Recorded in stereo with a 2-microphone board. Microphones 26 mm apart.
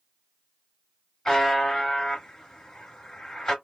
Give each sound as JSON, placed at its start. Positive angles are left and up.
{"t": 1.2, "sound": "a buzzer", "side_deg": 15, "distance_m": 1.8}